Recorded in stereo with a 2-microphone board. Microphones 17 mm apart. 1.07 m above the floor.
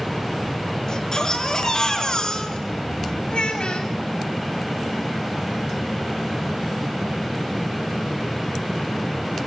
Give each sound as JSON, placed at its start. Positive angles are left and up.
{"t": 0.9, "sound": "a baby crying", "side_deg": 40, "distance_m": 5.0}
{"t": 3.3, "sound": "a child speaking", "side_deg": 75, "distance_m": 6.0}